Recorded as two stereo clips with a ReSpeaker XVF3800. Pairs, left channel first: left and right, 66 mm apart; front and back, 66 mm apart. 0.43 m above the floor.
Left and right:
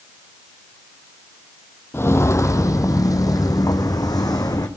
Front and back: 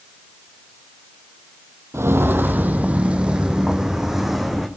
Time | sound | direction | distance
1.9 | footsteps | 140° left | 0.9 m